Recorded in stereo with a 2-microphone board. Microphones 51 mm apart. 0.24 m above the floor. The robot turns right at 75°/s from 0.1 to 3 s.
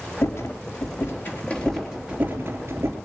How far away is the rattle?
About 4 m.